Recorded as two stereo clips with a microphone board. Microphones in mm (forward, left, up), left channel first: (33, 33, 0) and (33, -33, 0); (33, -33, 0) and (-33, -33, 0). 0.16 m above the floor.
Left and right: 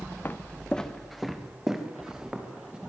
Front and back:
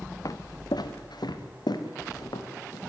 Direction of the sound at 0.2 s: 30° left.